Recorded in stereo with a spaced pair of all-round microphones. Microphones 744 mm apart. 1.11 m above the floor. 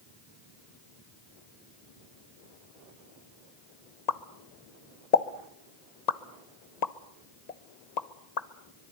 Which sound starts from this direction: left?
A pop, at 4.1 s.